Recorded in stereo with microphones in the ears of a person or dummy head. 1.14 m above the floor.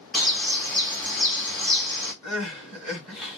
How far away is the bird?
About 2.0 m.